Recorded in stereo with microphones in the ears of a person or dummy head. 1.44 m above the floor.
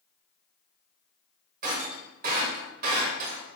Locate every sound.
1.6 s breaking glass: 50° right (ahead or behind), 1.9 m